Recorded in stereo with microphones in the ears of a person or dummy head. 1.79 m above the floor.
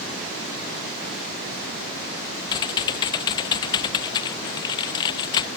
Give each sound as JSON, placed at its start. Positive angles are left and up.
{"t": 2.5, "sound": "typing on a keyboard", "side_deg": 25}